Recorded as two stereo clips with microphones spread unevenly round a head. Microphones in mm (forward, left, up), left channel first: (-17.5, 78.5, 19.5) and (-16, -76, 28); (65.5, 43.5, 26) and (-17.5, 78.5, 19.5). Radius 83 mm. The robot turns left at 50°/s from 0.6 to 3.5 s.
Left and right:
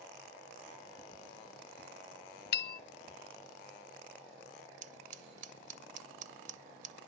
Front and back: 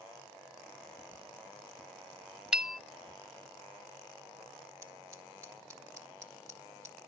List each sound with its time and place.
2.5 s a bell: 75° left, 0.7 m; by 2.8 s 60° left, 0.7 m
4.8 s scissors: 130° right, 1.3 m